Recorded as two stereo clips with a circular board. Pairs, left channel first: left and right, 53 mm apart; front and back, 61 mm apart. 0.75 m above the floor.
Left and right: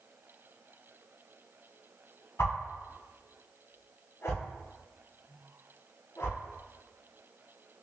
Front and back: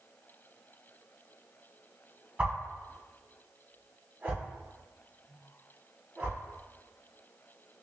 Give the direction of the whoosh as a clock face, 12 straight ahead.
8 o'clock.